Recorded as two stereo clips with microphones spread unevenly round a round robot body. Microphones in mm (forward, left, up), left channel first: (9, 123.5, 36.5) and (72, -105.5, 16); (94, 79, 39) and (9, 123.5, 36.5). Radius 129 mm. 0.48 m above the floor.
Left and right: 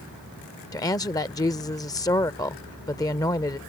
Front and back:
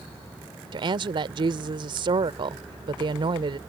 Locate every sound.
0.7 s a woman speaking: 175° right